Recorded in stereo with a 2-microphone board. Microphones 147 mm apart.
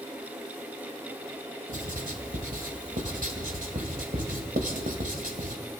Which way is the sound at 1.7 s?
70° right (ahead or behind).